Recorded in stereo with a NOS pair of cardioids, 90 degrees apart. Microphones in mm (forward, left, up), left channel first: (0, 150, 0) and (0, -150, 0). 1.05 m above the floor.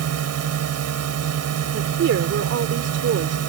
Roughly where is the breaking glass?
No breaking glass in this recording.